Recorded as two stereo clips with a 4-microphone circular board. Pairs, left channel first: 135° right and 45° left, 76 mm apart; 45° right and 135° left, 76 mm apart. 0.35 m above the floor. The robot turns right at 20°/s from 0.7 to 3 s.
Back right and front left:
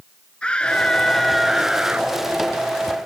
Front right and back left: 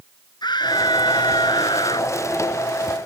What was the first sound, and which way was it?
A scream, 60° right.